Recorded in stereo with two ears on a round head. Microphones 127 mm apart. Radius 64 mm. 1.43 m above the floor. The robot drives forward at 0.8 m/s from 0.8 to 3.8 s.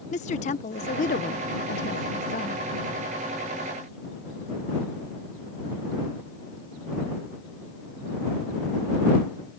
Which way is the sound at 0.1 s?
50° left (ahead or behind).